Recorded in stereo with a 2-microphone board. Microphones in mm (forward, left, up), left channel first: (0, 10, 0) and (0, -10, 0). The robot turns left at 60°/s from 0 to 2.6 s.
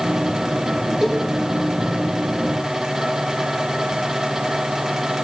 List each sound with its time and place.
1.0 s a cowbell: 20° right (ahead or behind), 6 m; by 1.2 s 10° right (ahead or behind), 6 m